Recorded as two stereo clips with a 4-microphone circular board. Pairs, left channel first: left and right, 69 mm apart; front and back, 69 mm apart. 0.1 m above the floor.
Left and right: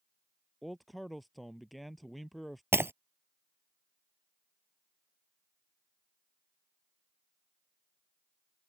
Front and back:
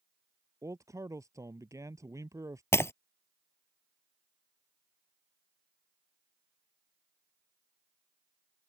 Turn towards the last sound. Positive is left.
turn(degrees=-40)